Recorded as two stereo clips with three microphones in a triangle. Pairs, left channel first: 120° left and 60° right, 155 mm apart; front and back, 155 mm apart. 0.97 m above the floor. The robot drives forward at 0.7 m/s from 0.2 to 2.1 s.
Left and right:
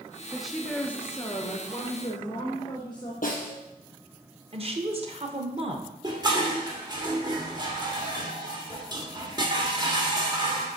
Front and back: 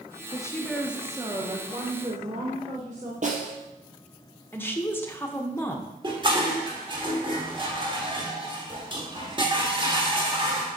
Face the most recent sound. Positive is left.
turn(degrees=-120)